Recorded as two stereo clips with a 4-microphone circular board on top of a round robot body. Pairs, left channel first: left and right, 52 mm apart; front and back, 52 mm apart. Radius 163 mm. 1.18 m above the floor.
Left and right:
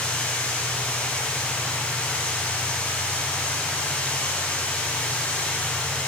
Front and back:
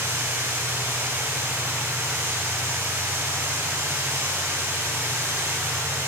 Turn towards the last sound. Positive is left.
turn(degrees=155)